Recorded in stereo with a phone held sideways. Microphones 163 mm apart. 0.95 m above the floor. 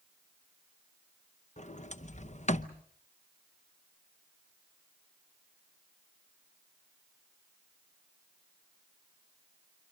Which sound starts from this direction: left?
A sliding door, at 1.6 s.